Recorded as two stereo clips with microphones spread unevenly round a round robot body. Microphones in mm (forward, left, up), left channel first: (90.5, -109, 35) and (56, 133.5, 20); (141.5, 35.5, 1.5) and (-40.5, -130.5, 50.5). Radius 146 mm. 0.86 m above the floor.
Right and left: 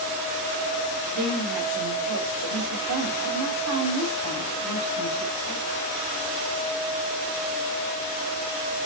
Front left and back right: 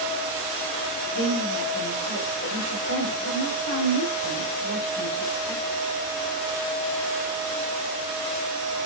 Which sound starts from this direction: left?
A woman speaking, at 1.1 s.